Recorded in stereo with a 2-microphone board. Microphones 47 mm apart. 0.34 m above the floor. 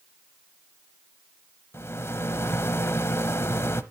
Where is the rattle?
65° left (ahead or behind), 0.8 m.